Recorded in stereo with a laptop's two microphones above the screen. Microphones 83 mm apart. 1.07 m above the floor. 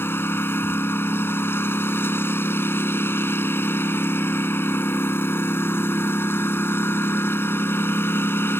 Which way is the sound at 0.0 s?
30° left (ahead or behind).